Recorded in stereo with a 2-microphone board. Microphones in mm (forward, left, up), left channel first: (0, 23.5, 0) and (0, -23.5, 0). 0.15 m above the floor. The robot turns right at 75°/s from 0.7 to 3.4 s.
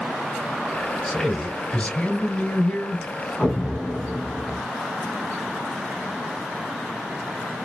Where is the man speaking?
5° left (ahead or behind), 1.5 m.